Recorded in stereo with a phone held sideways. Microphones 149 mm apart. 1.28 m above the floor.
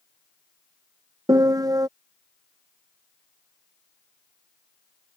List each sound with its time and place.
1.3 s a piano: 25° right (ahead or behind)